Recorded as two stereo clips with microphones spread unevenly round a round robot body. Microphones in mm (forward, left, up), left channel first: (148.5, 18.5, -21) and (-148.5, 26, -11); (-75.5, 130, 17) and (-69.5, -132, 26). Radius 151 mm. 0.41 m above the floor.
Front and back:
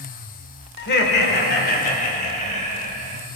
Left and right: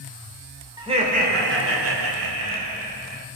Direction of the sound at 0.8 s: 20° right.